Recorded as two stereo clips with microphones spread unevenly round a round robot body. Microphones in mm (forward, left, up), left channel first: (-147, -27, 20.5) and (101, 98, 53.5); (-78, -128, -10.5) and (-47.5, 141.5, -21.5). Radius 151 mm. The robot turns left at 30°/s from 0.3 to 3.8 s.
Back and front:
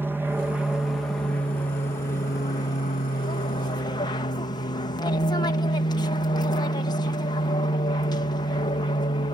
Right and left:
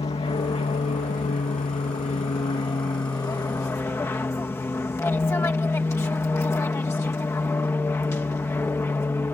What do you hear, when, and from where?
0.0 s an aircraft: 60° right; by 9.3 s 165° right